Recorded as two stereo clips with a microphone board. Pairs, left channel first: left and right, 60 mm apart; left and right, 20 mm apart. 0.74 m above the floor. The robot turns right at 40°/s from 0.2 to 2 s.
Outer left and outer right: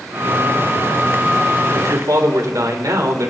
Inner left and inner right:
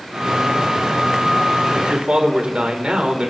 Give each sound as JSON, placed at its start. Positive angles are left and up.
{"t": 1.7, "sound": "a man speaking", "side_deg": -70, "distance_m": 2.5}